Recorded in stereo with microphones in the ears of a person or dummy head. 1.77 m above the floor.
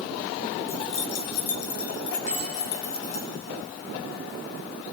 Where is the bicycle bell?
30° left (ahead or behind), 5.5 m.